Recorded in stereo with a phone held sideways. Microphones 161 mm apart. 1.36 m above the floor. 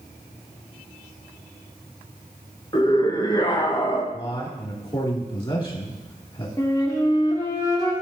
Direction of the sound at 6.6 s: 25° left (ahead or behind).